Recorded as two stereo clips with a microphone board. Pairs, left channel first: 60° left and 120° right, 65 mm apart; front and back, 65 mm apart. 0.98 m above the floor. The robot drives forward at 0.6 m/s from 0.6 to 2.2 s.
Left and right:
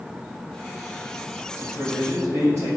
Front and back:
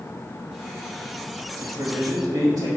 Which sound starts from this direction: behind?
A man speaking, at 1.6 s.